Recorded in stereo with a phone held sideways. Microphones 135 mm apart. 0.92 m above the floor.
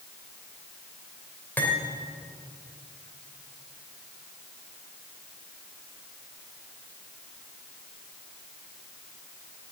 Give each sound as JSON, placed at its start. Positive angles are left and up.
{"t": 1.6, "sound": "cutlery clinking", "side_deg": 15, "distance_m": 2.5}